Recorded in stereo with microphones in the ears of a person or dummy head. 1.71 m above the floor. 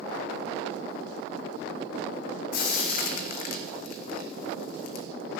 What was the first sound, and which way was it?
Frying, 55° left (ahead or behind).